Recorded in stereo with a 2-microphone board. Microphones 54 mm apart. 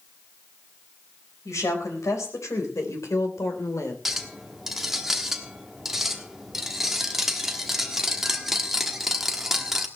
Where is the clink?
5° right (ahead or behind), 1.2 m.